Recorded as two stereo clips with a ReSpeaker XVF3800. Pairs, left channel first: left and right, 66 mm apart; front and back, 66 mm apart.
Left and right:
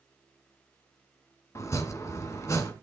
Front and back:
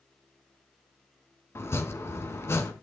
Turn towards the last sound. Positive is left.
turn(degrees=50)